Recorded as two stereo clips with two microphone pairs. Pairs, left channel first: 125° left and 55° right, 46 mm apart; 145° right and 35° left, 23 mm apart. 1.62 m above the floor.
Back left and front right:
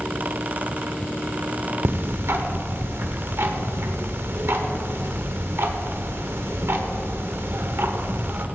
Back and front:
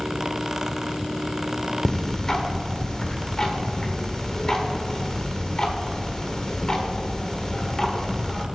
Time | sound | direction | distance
1.9 | ticking | 80° right | 1.1 m